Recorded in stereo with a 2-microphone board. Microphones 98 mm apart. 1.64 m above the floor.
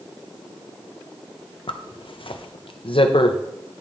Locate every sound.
1.7 s a zipper: 65° left (ahead or behind), 0.6 m